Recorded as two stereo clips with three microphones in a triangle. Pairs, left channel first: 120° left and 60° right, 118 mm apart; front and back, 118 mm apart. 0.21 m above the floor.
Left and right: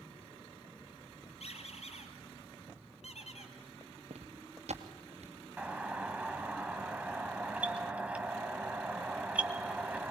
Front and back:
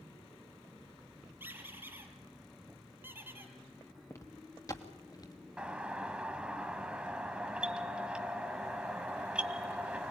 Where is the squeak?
110° left, 3.5 m.